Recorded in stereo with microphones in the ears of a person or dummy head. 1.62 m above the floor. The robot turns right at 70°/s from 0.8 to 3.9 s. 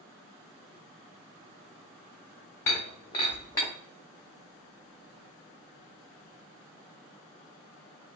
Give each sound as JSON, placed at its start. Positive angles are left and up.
{"t": 2.7, "sound": "breaking glass", "side_deg": 15, "distance_m": 0.7}